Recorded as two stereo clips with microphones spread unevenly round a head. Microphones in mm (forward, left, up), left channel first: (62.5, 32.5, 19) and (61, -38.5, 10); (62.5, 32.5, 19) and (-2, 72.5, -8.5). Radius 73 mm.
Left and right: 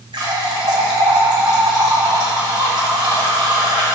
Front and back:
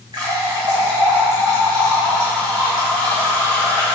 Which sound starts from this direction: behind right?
A running tap, at 0.1 s.